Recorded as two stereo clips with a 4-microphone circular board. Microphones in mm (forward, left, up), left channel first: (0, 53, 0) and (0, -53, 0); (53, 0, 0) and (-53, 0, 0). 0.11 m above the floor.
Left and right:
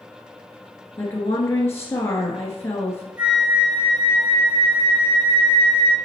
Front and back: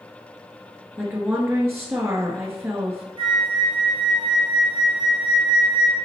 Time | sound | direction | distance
1.0 | a woman speaking | 130° left | 1.3 m
3.2 | a flute | 170° right | 2.5 m